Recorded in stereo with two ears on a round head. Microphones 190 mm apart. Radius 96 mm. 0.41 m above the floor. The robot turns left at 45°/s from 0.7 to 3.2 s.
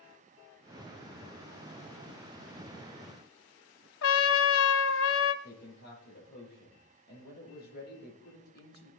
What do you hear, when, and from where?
4.0 s a trumpet: 65° left (ahead or behind), 1.1 m
5.4 s a man speaking: 50° left (ahead or behind), 9.5 m